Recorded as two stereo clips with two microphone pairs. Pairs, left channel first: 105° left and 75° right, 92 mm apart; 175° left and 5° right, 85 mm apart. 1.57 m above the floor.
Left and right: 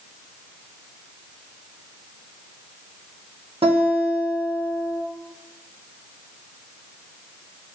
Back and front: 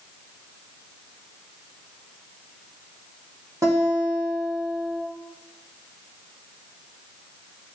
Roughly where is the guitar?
Ahead right.